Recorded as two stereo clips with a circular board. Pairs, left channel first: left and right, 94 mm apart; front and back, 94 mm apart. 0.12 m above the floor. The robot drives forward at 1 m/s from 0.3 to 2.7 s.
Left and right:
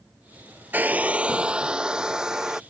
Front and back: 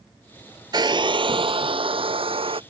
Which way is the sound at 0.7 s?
155° right.